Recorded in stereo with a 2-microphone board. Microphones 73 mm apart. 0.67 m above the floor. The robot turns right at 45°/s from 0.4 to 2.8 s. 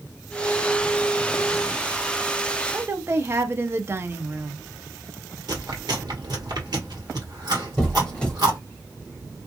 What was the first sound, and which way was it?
A woman speaking, 35° right (ahead or behind).